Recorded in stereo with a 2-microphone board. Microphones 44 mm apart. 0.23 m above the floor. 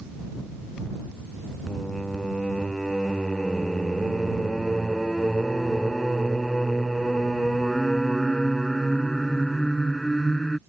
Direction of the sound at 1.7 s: 10° left (ahead or behind).